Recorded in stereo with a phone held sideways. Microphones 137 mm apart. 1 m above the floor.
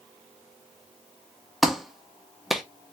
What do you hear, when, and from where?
1.6 s a clap: centre (ahead or behind), 0.6 m